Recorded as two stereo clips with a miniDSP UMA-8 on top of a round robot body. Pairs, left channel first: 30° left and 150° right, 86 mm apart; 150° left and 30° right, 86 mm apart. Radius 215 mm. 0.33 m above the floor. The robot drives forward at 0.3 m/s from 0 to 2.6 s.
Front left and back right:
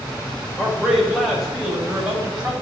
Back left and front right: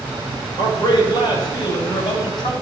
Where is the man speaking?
115° left, 2.5 m; by 2.5 s 130° left, 2.5 m.